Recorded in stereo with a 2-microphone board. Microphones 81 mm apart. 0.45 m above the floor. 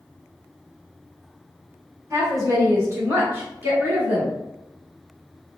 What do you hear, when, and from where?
2.1 s a woman speaking: 40° right (ahead or behind), 1.5 m; by 4.3 s 20° right (ahead or behind), 1.5 m